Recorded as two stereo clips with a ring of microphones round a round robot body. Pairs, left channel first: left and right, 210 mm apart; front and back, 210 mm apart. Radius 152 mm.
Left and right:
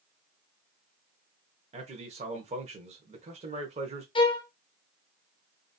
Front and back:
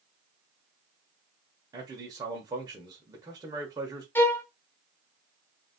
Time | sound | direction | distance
1.7 | a man speaking | 120° right | 0.9 m
4.2 | a violin | 65° left | 0.8 m